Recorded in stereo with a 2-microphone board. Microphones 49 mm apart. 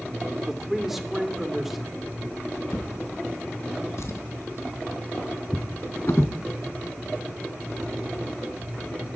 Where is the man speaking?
5° right (ahead or behind), 2 m.